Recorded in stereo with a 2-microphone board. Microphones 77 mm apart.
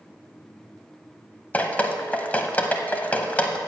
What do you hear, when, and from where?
1.5 s dripping: 20° left (ahead or behind), 0.6 m